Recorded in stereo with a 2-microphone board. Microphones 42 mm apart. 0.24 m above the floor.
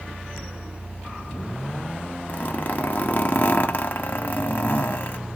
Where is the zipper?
45° left (ahead or behind), 1.1 m.